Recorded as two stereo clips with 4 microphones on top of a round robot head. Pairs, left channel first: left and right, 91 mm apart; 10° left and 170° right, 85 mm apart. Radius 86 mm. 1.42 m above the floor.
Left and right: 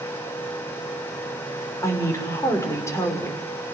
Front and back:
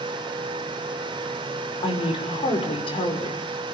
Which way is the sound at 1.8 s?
30° left.